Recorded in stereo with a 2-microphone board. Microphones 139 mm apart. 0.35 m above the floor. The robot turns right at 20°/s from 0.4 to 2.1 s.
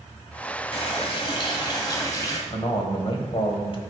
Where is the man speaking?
45° left (ahead or behind), 1.3 m.